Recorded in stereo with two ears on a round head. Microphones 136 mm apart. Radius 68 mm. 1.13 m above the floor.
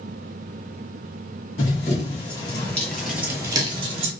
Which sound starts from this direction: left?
Running footsteps, at 1.6 s.